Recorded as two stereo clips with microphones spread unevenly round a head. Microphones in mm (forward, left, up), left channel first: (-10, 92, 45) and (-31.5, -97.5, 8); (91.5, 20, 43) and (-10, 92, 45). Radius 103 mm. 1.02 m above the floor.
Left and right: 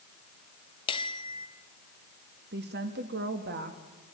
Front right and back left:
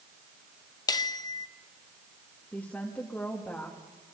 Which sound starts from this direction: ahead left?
A bell, at 0.9 s.